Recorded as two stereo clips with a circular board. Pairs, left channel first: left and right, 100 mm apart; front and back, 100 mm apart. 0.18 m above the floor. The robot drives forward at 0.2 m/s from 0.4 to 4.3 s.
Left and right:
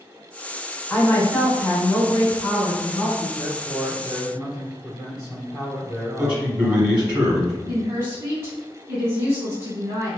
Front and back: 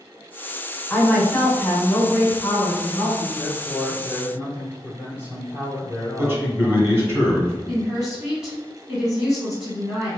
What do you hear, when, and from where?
0.9 s a woman speaking: 45° left, 1.1 m; by 3.3 s 125° left, 1.1 m
3.4 s a man speaking: 125° left, 1.8 m; by 7.2 s 130° left, 1.9 m
6.2 s a man speaking: 160° right, 1.2 m
7.7 s a woman speaking: 105° right, 1.1 m